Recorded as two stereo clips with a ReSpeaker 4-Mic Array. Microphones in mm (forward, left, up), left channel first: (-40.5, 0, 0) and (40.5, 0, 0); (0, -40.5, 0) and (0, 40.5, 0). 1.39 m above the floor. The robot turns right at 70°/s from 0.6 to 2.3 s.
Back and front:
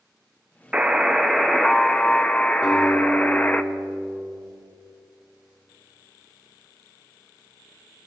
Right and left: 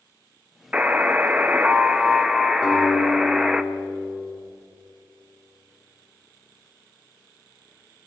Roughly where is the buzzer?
Ahead left.